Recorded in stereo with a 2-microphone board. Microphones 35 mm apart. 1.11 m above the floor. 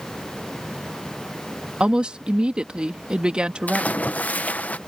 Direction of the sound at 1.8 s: 30° right (ahead or behind).